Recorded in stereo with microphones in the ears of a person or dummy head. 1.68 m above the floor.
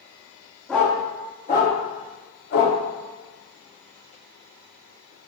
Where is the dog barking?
5° left (ahead or behind), 1.7 m; by 2.8 s 60° left (ahead or behind), 2 m.